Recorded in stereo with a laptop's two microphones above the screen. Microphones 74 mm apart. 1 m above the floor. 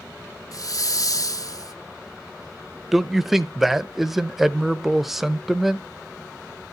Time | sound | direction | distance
0.5 | a hiss | 50° left (ahead or behind) | 0.5 m
2.9 | a man speaking | 5° right (ahead or behind) | 0.5 m